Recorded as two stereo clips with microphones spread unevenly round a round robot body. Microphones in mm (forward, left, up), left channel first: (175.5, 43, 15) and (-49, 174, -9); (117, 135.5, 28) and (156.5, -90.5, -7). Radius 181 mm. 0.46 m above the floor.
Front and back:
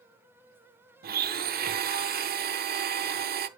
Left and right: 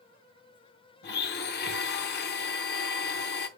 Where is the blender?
135° left, 0.7 m.